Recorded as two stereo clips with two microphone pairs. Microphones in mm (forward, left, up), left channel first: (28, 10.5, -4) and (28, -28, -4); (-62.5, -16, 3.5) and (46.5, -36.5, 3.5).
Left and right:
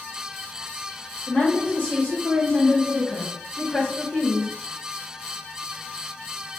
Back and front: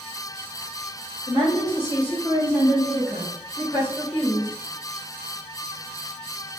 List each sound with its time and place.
1.3 s a woman speaking: 130° left, 1.5 m; by 4.5 s 75° left, 2.0 m